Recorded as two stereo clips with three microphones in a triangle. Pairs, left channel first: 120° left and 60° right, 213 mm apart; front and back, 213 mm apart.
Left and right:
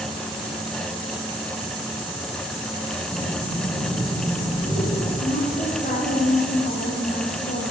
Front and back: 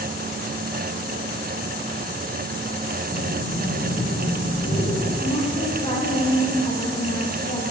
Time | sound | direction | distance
3.1 | breathing | 50° left | 8.5 m
5.2 | a woman speaking | 70° left | 9 m